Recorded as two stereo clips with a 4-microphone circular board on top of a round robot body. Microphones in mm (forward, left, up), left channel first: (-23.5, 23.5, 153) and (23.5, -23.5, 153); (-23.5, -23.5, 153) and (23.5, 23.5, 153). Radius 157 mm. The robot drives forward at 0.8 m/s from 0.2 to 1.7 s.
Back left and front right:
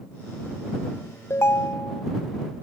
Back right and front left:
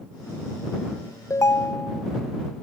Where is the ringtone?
175° right, 0.8 m.